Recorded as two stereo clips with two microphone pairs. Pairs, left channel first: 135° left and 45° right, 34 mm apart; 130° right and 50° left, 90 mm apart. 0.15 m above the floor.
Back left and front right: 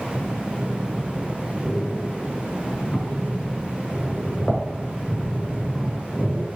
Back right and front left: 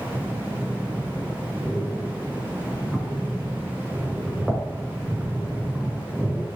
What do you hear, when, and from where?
0.1 s breathing: 140° left, 1.6 m